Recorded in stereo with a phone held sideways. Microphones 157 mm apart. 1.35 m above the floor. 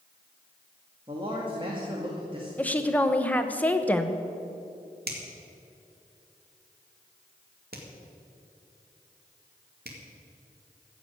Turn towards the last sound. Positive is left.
turn(degrees=-80)